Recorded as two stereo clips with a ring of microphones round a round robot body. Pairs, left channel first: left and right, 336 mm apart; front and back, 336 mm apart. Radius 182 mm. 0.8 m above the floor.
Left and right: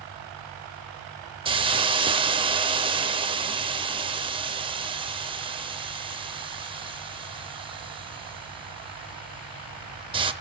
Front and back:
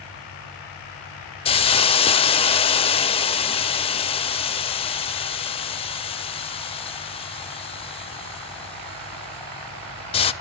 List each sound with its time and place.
1.4 s a hiss: 40° right, 0.5 m